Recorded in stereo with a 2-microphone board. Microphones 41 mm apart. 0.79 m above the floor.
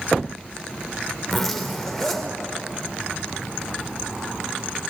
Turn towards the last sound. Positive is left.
turn(degrees=5)  # may be behind; listen again after turning